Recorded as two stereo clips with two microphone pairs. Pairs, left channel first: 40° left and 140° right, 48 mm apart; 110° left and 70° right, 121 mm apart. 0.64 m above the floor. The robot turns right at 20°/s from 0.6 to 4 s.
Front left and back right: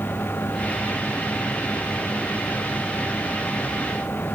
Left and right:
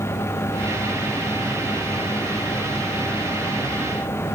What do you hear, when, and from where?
Only background noise.